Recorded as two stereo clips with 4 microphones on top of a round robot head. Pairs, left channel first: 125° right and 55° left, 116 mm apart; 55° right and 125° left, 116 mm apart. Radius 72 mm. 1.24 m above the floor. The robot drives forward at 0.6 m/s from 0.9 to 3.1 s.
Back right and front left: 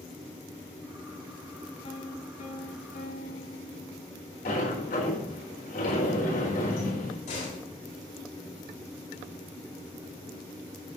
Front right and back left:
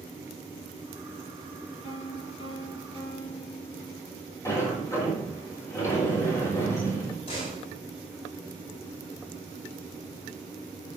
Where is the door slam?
100° right, 5.5 m.